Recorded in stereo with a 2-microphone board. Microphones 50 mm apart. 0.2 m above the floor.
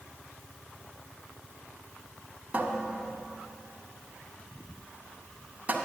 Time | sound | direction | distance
2.5 | a cupboard door | 30° right (ahead or behind) | 1.0 m